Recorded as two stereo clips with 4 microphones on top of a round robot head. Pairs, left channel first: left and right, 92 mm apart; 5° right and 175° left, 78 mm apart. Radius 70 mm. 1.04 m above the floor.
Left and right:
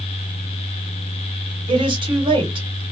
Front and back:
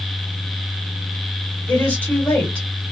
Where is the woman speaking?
75° right, 1.3 m.